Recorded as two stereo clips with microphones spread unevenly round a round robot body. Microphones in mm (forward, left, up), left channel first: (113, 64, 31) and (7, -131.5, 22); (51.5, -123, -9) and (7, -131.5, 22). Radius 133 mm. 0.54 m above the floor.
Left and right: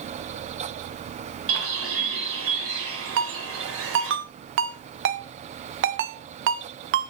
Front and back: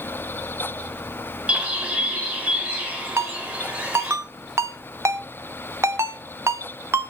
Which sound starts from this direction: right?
A bird, at 1.5 s.